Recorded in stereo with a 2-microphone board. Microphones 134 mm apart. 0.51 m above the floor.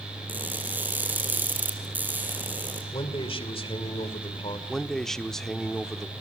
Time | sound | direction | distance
0.3 | crushing | 15° right (ahead or behind) | 4 m
2.9 | a man speaking | 45° left (ahead or behind) | 2.5 m
4.7 | a man speaking | 5° left (ahead or behind) | 0.8 m